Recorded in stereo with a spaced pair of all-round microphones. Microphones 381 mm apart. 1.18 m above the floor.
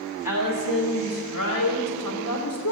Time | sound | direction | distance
0.2 | a woman speaking | 60° left (ahead or behind) | 6 m